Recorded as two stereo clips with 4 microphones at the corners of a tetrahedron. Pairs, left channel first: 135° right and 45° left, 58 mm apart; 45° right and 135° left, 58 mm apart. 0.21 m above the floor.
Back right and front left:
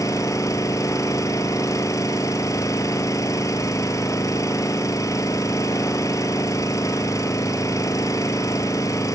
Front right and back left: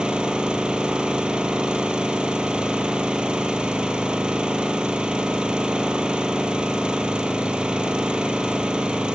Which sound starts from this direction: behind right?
An engine running, at 0.0 s.